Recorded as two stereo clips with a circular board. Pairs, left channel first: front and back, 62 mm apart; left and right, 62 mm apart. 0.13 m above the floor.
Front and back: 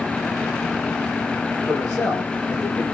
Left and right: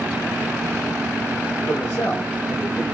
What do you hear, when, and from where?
1.7 s a man speaking: 60° left, 1.2 m; by 2.9 s 75° left, 1.8 m